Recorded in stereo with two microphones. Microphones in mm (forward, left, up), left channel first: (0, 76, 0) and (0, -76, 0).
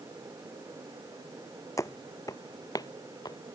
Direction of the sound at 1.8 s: 20° left (ahead or behind).